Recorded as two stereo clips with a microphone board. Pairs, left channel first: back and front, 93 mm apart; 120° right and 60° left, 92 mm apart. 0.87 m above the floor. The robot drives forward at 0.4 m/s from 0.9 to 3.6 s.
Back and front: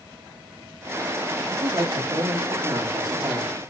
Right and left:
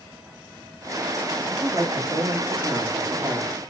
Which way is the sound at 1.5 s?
15° left.